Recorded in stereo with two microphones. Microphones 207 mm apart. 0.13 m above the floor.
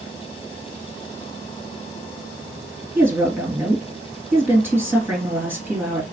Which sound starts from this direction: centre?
A woman speaking, at 3.0 s.